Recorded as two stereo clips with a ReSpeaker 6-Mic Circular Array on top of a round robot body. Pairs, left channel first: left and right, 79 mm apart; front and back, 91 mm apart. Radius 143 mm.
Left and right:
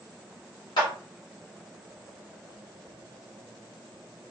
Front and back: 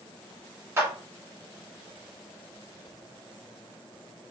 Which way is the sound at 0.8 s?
115° left.